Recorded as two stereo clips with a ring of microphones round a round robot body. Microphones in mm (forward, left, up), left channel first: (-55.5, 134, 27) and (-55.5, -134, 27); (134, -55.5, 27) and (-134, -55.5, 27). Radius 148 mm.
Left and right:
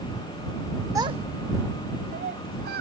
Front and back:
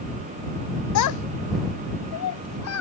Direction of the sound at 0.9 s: 10° right.